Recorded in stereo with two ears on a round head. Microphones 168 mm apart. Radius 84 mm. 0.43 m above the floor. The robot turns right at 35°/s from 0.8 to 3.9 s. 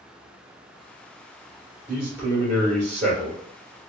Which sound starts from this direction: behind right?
A man speaking, at 1.9 s.